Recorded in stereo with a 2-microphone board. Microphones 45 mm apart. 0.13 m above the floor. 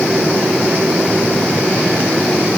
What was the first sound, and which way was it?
Only background noise.